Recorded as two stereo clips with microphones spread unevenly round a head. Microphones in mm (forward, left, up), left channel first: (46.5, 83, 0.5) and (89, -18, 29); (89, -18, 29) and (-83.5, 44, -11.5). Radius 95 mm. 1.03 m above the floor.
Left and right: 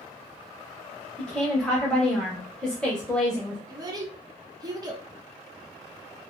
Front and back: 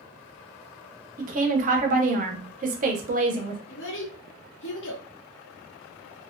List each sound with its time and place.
1.2 s a woman speaking: 175° right, 0.6 m
3.7 s a child speaking: 20° right, 0.7 m